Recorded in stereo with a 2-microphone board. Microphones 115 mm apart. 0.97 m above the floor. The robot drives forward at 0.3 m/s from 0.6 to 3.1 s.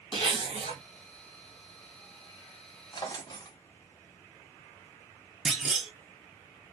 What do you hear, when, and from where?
0.1 s a zipper: 45° left (ahead or behind), 1.5 m
2.9 s a drawer: 35° left (ahead or behind), 0.6 m; by 3.6 s 40° left (ahead or behind), 0.6 m
5.5 s a clunk: 5° right (ahead or behind), 0.6 m